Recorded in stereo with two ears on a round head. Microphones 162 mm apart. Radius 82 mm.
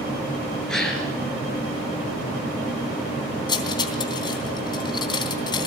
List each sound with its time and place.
0.7 s a gasp: 5° left (ahead or behind), 4.5 m
3.5 s cutlery clinking: 25° left (ahead or behind), 3 m